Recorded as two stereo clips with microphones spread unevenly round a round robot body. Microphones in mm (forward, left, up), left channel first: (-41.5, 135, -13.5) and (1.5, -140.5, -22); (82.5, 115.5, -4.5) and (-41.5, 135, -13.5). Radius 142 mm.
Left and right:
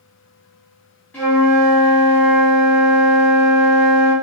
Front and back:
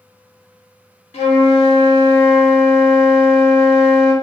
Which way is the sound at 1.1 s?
15° left.